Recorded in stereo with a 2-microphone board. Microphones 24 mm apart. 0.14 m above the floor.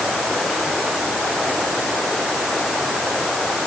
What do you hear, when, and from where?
Only background noise.